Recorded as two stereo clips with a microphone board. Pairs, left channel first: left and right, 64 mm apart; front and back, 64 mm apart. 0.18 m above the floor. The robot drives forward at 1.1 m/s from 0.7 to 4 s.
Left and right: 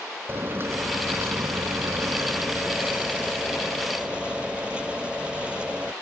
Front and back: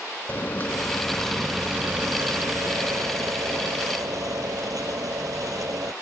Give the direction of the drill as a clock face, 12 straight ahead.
2 o'clock.